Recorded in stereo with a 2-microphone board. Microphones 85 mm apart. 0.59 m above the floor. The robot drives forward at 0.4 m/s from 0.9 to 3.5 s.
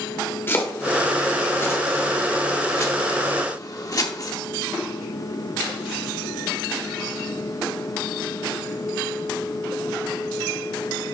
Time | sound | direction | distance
0.5 | chopping | 30° left (ahead or behind) | 1.9 m